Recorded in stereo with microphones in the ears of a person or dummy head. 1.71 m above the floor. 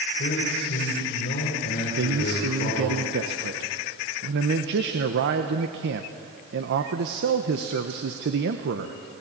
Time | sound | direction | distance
0.2 | a man speaking | 45° left (ahead or behind) | 5 m
2.0 | a man speaking | 50° right (ahead or behind) | 1.0 m